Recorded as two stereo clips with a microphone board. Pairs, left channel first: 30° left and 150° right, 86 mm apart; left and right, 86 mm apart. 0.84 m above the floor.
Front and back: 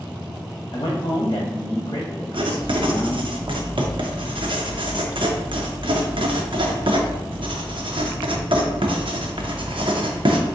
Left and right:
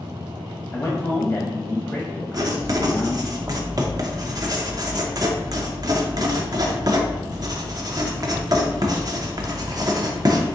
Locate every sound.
0.7 s a man speaking: 30° left, 0.8 m
2.3 s writing: 135° right, 0.6 m